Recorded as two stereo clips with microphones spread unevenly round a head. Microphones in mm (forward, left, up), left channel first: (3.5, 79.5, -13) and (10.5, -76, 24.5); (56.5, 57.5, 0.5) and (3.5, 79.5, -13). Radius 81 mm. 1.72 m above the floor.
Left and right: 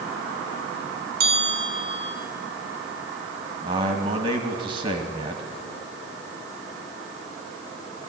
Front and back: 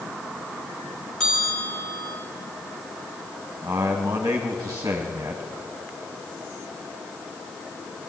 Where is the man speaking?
130° right, 1.8 m.